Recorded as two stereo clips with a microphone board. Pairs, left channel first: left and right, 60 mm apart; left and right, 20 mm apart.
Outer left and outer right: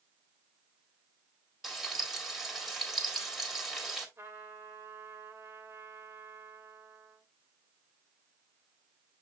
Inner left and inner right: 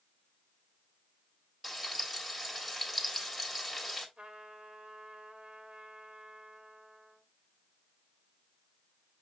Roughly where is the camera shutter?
No camera shutter in this recording.